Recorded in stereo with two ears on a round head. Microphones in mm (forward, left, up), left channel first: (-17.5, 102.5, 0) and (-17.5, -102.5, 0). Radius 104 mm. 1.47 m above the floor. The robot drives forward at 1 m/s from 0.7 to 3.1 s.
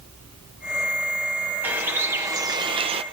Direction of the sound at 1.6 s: 10° right (ahead or behind).